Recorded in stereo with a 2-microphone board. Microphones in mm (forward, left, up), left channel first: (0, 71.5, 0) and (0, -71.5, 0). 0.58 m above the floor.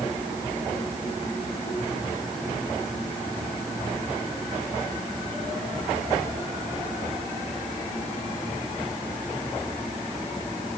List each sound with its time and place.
Only background noise.